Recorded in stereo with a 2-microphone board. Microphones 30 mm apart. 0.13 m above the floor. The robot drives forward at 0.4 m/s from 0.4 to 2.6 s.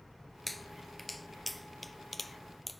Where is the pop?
Centre (ahead or behind).